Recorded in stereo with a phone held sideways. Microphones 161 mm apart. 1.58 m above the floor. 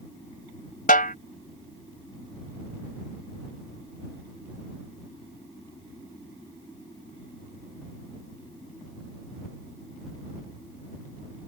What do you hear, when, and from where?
0.9 s a snare drum: 65° left (ahead or behind)